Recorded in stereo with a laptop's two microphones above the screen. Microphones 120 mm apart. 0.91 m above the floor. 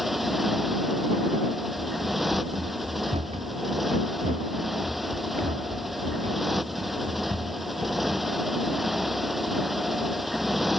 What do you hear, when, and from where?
0.0 s a motorcycle: centre (ahead or behind)
1.8 s running footsteps: 70° right (ahead or behind); by 8.3 s 75° right (ahead or behind)